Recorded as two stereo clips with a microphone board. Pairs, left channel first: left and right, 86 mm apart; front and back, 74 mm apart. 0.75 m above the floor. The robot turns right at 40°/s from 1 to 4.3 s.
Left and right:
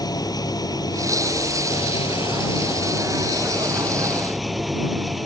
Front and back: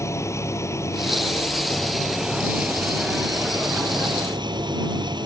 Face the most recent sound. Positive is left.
turn(degrees=180)